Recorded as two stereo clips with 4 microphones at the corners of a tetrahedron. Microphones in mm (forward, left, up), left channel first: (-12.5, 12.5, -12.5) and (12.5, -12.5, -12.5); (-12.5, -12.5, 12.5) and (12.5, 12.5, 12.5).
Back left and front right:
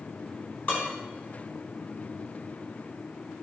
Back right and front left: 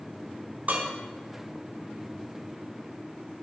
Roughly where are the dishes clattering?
Left.